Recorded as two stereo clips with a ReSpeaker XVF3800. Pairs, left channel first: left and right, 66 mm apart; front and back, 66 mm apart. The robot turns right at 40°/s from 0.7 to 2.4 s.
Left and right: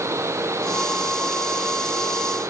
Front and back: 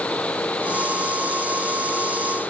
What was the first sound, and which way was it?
Only background noise.